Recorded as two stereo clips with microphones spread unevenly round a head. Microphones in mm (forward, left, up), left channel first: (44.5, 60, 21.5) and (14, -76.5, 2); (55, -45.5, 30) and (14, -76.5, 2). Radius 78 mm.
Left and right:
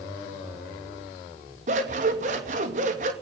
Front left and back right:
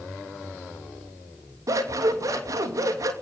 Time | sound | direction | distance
1.7 | scissors | 145° right | 2.5 m